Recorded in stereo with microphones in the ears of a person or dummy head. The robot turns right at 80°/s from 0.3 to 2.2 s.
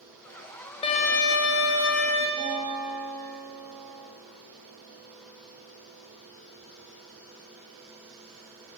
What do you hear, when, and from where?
0.8 s a violin: 35° left, 1.0 m; by 2.3 s 145° left, 1.0 m
2.4 s a guitar: 5° left (ahead or behind), 3 m